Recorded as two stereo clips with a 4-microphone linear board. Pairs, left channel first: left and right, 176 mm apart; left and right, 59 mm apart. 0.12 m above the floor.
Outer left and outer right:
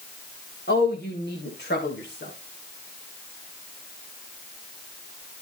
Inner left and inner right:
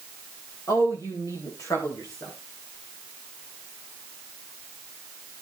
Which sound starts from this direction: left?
A woman speaking, at 0.7 s.